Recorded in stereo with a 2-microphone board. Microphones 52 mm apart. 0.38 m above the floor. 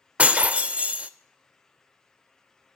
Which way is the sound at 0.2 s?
25° right (ahead or behind).